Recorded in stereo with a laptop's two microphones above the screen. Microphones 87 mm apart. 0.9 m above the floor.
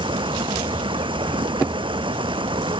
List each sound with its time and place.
0.0 s running water: 70° right (ahead or behind)